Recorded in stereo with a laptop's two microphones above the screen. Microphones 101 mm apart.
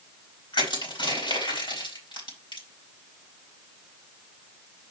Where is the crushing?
50° left (ahead or behind), 5 m.